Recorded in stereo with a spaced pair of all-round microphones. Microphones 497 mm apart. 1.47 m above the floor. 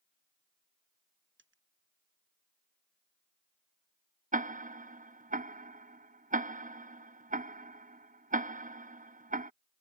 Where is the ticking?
15° right (ahead or behind).